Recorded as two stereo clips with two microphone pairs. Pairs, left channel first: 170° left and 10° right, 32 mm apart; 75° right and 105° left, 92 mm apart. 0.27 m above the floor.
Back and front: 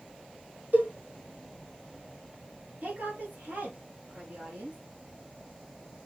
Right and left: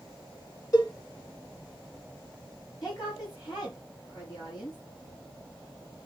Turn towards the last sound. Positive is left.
turn(degrees=-35)